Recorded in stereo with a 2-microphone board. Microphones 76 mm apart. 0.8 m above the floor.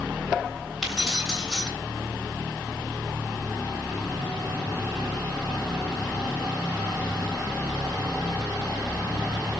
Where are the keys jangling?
5° right (ahead or behind), 3.5 m.